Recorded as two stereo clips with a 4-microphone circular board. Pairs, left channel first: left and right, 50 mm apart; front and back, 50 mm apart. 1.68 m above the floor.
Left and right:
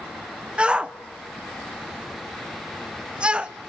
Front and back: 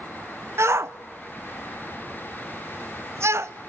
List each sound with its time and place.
0.6 s a shout: 155° right, 0.9 m